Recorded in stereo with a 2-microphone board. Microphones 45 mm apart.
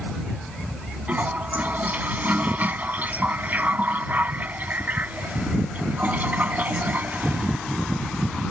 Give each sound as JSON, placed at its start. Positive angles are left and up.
{"t": 1.1, "sound": "a toilet flushing", "side_deg": -40}